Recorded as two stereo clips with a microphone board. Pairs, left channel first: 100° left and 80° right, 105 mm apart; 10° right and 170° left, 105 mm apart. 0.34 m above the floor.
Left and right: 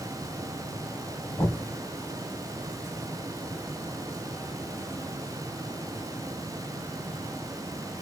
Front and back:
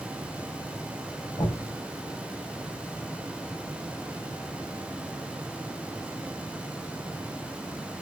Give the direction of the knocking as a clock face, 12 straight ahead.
11 o'clock.